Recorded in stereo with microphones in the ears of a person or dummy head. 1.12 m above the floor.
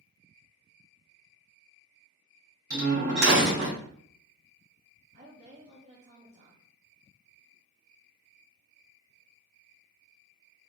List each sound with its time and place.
2.7 s a door slam: 75° right (ahead or behind), 2 m
5.1 s a woman speaking: 35° right (ahead or behind), 0.9 m